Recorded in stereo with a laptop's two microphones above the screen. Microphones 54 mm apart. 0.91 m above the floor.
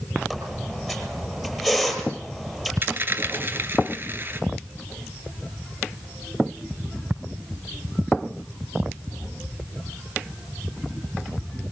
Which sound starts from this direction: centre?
A squeak, at 0.3 s.